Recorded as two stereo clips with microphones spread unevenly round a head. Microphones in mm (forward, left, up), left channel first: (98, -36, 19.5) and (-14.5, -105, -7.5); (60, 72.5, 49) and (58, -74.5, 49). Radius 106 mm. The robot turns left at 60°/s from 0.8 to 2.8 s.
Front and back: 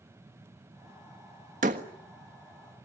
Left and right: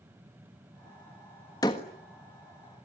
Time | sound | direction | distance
1.6 | a door slam | 160° left | 1.4 m